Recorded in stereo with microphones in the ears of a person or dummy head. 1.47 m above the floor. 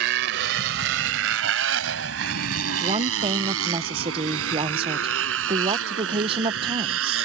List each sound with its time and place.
0.0 s a motorcycle: 55° right (ahead or behind); by 7.3 s 85° right
2.8 s a woman speaking: 35° right (ahead or behind)